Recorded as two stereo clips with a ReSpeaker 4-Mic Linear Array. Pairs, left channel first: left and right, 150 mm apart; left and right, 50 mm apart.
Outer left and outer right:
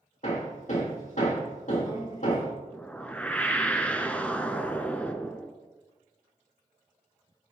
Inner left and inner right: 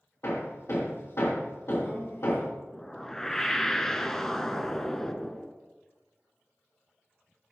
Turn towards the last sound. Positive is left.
turn(degrees=10)  # may be behind; listen again after turning